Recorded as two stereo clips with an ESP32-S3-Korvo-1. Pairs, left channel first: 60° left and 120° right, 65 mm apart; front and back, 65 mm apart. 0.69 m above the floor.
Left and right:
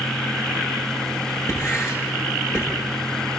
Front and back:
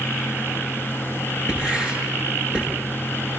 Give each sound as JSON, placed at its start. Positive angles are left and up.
{"t": 1.5, "sound": "writing", "azimuth_deg": 105, "distance_m": 9.0}